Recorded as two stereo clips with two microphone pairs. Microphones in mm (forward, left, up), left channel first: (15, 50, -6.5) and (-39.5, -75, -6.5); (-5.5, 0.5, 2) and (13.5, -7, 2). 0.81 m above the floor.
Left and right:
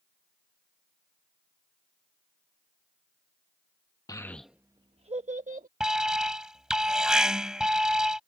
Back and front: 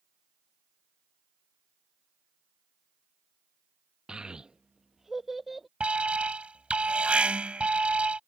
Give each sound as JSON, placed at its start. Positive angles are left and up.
{"t": 4.1, "sound": "a child speaking", "azimuth_deg": 10}
{"t": 5.8, "sound": "an alarm", "azimuth_deg": -30}